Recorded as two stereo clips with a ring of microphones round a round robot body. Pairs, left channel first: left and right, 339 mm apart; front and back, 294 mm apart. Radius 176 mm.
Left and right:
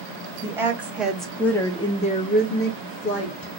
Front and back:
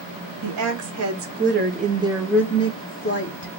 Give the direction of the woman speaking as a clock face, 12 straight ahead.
6 o'clock.